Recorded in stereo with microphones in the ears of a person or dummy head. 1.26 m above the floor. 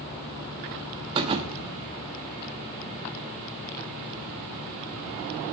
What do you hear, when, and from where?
1.1 s a thud: 35° right (ahead or behind), 1.0 m